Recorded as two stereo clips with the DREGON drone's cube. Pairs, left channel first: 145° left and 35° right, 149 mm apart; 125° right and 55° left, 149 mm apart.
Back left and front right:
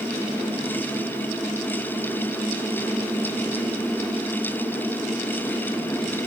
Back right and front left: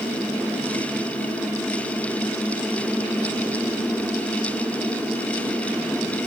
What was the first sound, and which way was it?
Only background noise.